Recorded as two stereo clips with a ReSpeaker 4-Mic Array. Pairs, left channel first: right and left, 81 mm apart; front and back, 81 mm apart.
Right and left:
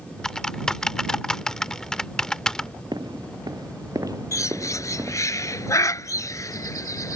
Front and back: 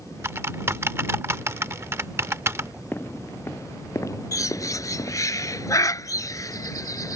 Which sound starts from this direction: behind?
Typing on a keyboard, at 0.2 s.